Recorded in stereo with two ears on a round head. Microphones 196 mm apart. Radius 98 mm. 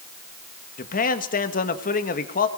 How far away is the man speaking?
About 1.7 m.